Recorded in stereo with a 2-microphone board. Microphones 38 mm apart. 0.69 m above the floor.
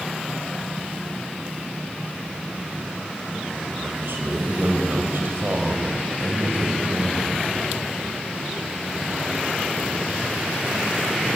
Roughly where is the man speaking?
Right.